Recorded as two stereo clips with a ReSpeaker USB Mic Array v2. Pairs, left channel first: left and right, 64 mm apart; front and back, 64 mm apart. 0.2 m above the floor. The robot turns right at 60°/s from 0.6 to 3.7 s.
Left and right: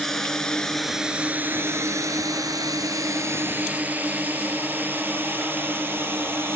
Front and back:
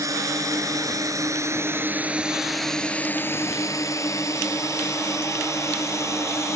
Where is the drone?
175° left; by 6.6 s 40° right.